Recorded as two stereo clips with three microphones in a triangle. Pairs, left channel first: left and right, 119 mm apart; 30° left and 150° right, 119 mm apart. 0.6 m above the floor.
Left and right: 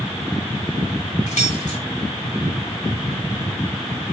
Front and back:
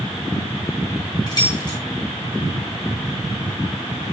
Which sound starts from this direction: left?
Keys jangling, at 1.3 s.